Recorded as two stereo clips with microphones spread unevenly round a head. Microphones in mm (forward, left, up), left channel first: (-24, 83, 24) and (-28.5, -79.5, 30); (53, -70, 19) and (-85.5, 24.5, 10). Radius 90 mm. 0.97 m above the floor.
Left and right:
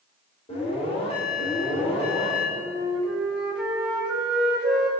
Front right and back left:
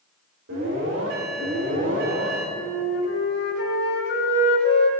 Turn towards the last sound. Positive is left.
turn(degrees=-5)